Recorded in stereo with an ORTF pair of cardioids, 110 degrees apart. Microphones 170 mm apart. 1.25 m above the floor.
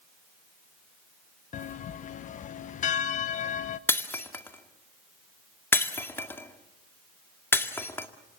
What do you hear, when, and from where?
1.5 s a bell: 50° left, 1.0 m
3.9 s breaking glass: 15° left, 1.9 m